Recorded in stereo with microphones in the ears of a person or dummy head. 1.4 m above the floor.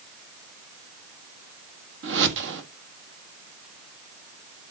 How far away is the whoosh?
About 1.5 m.